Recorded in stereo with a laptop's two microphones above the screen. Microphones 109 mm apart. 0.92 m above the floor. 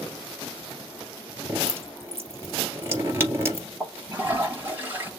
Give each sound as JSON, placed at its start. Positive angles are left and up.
{"t": 1.5, "sound": "dripping", "side_deg": -25, "distance_m": 2.5}
{"t": 3.8, "sound": "a toilet flushing", "side_deg": -20, "distance_m": 2.5}